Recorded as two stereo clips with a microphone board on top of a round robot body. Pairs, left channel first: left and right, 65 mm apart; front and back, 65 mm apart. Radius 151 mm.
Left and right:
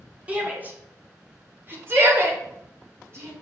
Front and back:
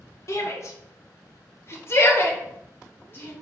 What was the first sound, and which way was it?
A shout, 25° right.